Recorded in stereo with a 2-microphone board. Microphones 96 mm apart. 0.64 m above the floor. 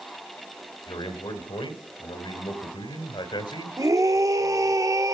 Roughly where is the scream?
Right.